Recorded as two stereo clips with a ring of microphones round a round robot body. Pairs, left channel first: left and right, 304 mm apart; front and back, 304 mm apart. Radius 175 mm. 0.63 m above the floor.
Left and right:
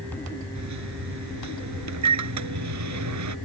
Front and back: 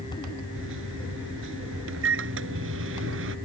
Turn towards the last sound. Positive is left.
turn(degrees=-125)